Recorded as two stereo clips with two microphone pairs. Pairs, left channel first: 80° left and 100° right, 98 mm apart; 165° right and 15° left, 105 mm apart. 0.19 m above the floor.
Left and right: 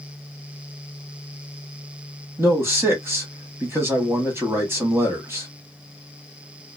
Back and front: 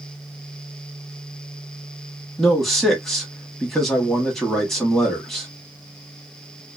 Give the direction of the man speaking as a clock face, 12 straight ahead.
3 o'clock.